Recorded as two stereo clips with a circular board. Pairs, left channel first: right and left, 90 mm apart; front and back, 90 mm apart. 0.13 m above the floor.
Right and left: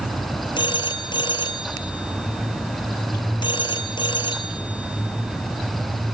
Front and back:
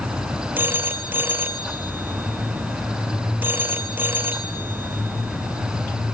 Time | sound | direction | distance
0.6 | a phone ringing | 115° right | 1.8 m